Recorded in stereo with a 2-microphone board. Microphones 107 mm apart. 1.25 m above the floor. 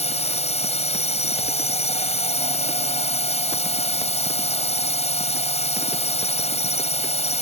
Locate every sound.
0.0 s a drone: 85° left